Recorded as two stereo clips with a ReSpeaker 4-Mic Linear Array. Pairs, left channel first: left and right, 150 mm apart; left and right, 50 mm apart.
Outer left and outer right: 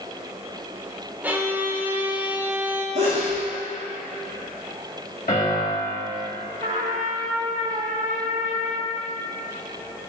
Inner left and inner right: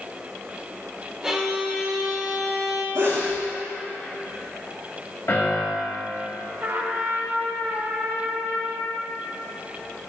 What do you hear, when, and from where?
1.2 s a violin: 10° right (ahead or behind), 0.7 m
3.0 s a sneeze: 85° right, 1.6 m
5.3 s a piano: 65° left (ahead or behind), 2 m
6.6 s a trumpet: 60° right (ahead or behind), 1.0 m